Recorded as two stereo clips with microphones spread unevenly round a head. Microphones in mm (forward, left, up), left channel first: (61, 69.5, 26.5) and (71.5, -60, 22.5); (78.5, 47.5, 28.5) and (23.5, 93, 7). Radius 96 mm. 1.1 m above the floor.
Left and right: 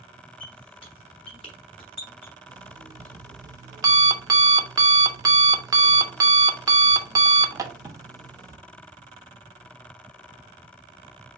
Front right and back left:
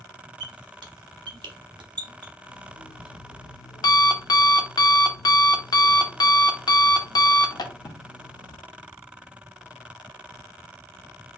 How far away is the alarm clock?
About 1.0 m.